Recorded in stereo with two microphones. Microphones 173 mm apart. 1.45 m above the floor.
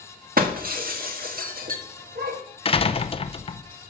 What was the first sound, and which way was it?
Breaking glass, 55° right (ahead or behind).